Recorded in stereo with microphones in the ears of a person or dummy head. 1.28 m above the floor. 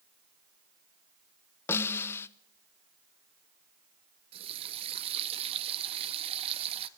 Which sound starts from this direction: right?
A running tap, at 4.3 s.